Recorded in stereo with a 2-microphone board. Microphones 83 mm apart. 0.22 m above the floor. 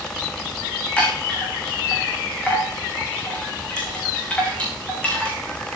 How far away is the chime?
About 6 m.